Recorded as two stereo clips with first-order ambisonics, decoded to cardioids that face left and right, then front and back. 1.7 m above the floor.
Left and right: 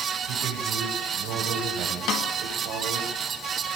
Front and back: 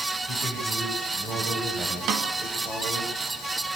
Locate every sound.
0.3 s a man speaking: 105° right, 7 m; by 3.1 s 115° right, 8 m
2.1 s a snare drum: 130° left, 2.5 m